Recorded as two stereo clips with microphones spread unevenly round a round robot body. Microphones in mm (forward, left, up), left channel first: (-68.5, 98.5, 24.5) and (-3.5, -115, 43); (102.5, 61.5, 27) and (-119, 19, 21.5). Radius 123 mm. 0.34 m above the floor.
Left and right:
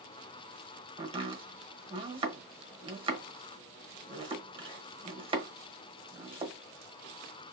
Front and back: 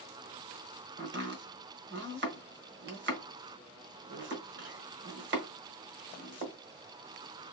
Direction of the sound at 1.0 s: 140° right.